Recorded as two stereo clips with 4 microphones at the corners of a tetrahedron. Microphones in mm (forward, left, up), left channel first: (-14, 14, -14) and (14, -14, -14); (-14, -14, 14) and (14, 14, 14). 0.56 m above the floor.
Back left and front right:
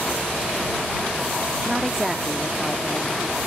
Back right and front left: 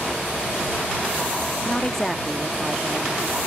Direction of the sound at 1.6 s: 105° right.